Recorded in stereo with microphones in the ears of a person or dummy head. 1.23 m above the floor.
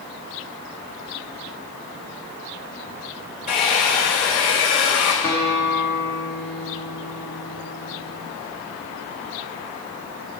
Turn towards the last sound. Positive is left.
turn(degrees=25)  # may be behind; listen again after turning